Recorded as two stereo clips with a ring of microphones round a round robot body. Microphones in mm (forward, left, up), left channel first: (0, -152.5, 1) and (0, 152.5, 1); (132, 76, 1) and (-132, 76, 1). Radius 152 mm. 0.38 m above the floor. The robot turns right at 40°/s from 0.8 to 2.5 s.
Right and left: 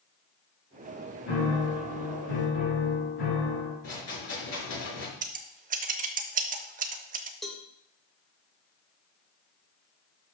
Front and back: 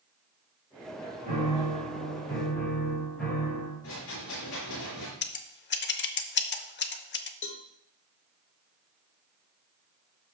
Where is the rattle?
50° right, 5.5 m.